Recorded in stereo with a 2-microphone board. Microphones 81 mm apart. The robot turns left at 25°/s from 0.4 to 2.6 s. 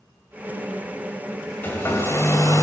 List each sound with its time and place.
1.6 s a hair dryer: 25° left (ahead or behind), 1.8 m; by 2.6 s 45° left (ahead or behind), 1.8 m